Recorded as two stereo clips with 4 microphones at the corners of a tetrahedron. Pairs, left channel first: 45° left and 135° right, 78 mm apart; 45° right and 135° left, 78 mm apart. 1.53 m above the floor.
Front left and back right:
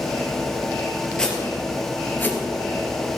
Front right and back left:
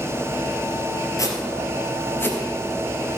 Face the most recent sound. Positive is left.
turn(degrees=0)